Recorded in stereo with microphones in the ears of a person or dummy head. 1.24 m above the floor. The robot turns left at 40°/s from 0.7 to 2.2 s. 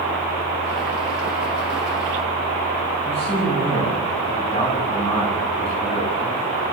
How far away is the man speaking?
About 9.5 m.